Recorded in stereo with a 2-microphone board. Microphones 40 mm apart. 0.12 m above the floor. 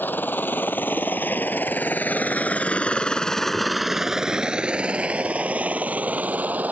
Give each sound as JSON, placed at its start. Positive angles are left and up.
{"t": 0.0, "sound": "a helicopter", "side_deg": 55}